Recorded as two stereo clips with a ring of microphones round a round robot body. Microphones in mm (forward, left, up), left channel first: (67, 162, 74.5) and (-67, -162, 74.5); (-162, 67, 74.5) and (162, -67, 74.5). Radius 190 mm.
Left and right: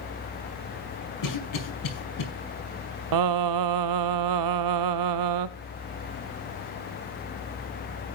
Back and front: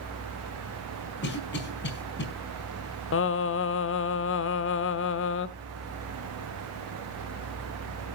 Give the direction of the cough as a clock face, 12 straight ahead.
9 o'clock.